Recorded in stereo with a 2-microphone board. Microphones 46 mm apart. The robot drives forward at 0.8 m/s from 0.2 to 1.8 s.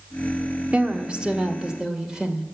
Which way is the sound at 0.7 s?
30° right (ahead or behind).